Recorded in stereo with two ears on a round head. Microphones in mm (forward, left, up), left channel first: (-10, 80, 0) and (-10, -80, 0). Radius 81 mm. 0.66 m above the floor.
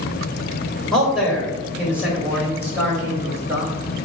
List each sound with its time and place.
0.9 s a man speaking: centre (ahead or behind), 3 m; by 3.7 s 15° right (ahead or behind), 4.5 m